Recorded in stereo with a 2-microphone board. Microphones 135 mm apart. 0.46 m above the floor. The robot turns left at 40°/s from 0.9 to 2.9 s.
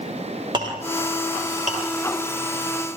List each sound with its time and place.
0.5 s a clink: 35° right (ahead or behind), 7.5 m; by 1.8 s 70° right (ahead or behind), 7.5 m